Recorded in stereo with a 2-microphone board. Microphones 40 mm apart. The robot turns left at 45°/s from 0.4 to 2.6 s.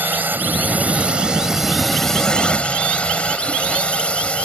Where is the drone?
115° right; by 4.5 s 145° left.